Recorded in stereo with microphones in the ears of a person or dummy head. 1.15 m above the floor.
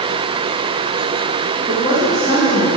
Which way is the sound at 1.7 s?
25° right (ahead or behind).